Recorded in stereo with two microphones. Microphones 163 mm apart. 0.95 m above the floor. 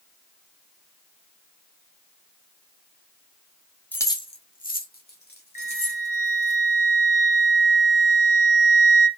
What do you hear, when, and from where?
3.9 s keys jangling: 10° left (ahead or behind), 0.7 m; by 6.5 s 85° left, 2 m
5.5 s a flute: 60° left (ahead or behind), 1.4 m